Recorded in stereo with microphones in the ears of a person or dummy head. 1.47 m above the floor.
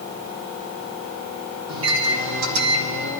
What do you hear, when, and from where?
1.7 s a microwave: 70° right (ahead or behind), 1.5 m